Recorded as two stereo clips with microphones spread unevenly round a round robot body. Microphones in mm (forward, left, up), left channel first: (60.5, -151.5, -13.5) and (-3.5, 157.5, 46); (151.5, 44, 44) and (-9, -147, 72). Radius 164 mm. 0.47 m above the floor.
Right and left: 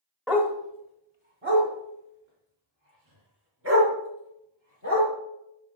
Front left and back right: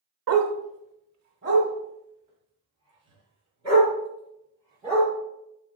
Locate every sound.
0.3 s a dog barking: 165° right, 0.9 m; by 5.1 s 150° left, 4.5 m